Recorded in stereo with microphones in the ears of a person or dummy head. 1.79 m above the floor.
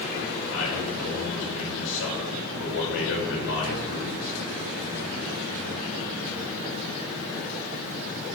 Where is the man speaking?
70° left (ahead or behind), 6.5 m.